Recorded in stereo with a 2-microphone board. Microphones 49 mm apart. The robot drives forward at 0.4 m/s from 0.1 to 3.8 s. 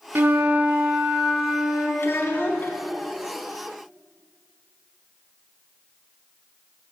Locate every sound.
0.1 s a flute: 45° right (ahead or behind), 0.5 m; by 1.9 s 20° right (ahead or behind), 1.1 m
2.0 s a child speaking: 55° left (ahead or behind), 1.1 m; by 2.8 s 50° left (ahead or behind), 1.2 m